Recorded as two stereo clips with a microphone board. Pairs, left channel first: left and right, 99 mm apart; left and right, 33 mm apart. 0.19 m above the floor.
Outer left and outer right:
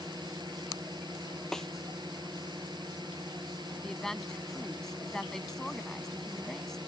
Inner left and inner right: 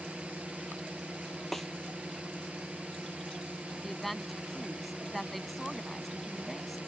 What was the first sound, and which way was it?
A drone, 50° right (ahead or behind).